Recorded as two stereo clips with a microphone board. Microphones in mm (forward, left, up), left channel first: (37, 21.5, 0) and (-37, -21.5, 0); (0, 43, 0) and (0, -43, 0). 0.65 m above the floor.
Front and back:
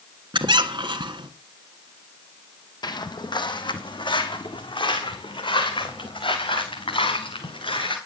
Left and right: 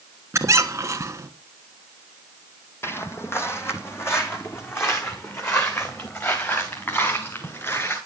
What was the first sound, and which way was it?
A squeak, 140° right.